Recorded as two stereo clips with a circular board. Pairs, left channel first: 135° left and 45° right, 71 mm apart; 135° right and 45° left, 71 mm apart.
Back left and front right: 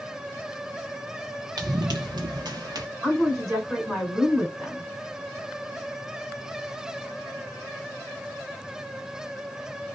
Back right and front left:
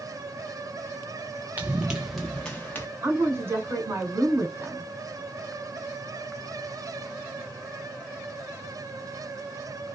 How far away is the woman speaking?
About 1.9 m.